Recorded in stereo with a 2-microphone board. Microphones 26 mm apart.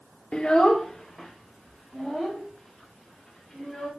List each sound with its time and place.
0.3 s a child speaking: 40° left (ahead or behind), 0.6 m; by 3.9 s 15° left (ahead or behind), 5.5 m